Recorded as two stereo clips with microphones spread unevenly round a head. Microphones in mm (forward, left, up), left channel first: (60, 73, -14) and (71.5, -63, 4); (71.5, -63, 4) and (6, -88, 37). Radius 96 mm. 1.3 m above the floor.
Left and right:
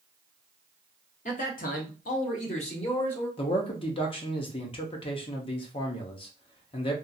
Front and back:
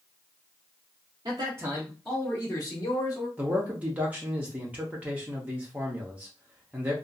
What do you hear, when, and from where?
1.2 s a man speaking: 140° left, 0.8 m; by 3.3 s 45° left, 1.2 m
3.4 s a man speaking: 105° left, 0.6 m